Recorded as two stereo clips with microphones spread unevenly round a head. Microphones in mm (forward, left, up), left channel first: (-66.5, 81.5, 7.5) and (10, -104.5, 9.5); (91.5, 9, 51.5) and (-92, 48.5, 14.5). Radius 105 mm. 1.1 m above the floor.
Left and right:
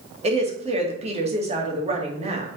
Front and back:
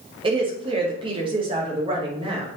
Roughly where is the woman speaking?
Behind right.